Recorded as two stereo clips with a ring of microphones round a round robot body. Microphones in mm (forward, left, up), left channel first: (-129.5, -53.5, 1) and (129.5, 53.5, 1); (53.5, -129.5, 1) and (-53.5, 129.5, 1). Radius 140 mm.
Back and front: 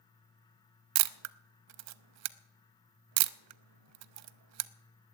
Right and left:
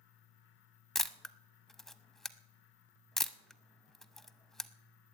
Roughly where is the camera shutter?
Ahead.